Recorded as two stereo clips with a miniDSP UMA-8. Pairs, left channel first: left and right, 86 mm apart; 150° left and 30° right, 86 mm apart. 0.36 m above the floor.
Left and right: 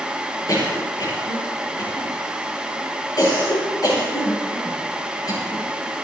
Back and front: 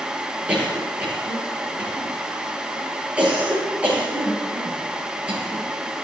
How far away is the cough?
About 9 m.